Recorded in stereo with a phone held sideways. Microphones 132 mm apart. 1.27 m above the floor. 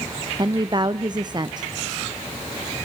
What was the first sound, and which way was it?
A woman speaking, 35° right (ahead or behind).